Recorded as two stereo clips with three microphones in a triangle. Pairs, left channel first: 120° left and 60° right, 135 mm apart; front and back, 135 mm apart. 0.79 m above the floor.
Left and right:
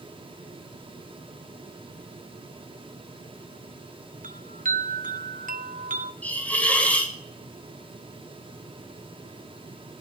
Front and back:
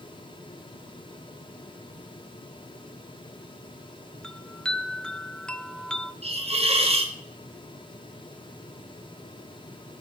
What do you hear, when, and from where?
4.2 s a chime: 85° right, 0.6 m
6.2 s a hiss: 165° right, 1.5 m